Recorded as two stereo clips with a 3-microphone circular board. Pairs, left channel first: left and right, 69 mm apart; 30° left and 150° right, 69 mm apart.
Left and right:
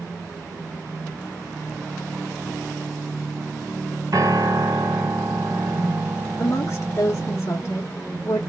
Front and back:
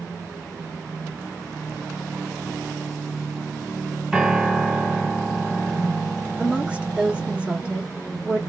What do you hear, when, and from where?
4.1 s a piano: 70° right, 1.7 m
6.4 s a woman speaking: 130° left, 1.5 m